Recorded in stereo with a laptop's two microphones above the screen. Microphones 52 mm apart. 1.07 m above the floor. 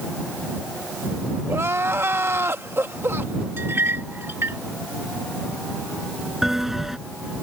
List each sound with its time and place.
1.5 s crying: 55° right (ahead or behind)
3.6 s a clink: 50° right (ahead or behind)
6.4 s a bell: 5° right (ahead or behind)